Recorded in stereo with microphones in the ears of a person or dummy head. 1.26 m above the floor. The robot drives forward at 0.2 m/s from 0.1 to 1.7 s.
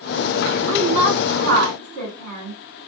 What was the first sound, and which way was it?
A woman speaking, 75° right (ahead or behind).